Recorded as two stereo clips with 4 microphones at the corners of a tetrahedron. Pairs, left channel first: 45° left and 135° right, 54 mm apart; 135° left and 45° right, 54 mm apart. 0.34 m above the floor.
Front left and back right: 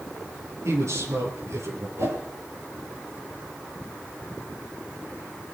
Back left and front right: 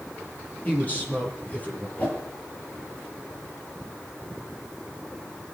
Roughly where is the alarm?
I don't hear an alarm.